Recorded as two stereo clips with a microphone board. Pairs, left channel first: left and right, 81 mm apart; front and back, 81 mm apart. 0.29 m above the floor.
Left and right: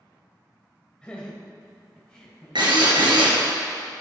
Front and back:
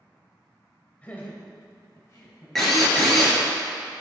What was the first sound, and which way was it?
Laughter, 35° left.